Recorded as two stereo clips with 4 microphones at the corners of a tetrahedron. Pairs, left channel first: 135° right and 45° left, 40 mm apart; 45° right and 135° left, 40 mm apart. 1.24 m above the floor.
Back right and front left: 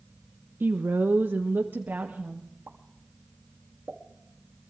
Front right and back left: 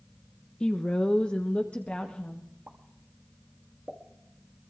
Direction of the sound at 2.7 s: 80° left.